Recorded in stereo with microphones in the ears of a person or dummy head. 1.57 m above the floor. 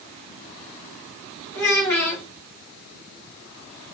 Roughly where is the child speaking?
Centre.